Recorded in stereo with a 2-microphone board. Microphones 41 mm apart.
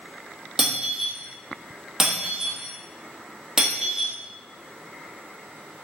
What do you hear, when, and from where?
0.6 s breaking glass: 15° right (ahead or behind), 1.4 m